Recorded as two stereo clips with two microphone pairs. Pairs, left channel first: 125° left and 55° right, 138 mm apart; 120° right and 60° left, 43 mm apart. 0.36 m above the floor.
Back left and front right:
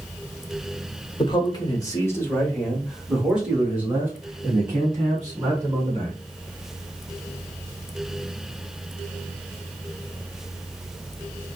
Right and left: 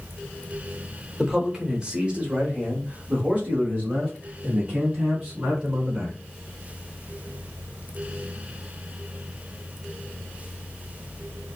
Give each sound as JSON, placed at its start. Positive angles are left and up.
{"t": 1.2, "sound": "a man speaking", "azimuth_deg": 130, "distance_m": 1.2}